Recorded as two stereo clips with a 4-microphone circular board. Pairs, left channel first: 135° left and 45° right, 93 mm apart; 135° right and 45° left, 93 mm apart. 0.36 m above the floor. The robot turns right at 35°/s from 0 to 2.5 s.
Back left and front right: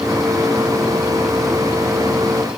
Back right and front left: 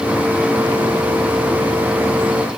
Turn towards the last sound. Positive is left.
No sound to turn to.